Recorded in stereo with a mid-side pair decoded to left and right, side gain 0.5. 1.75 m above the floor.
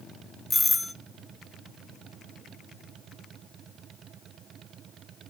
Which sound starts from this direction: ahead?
A doorbell, at 0.5 s.